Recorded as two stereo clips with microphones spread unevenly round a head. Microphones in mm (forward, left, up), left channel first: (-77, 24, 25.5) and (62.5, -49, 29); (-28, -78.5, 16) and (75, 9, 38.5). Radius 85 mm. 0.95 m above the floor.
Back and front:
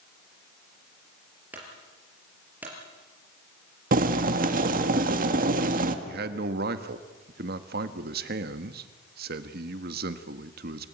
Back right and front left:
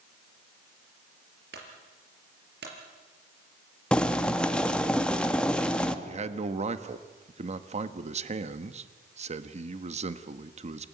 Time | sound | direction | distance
1.5 | a clunk | 55° left | 5 m
3.9 | boiling | 60° right | 1.6 m
6.0 | a man speaking | straight ahead | 1.4 m